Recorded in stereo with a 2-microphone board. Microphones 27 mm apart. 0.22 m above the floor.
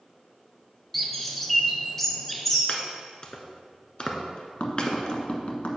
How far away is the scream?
I don't hear a scream.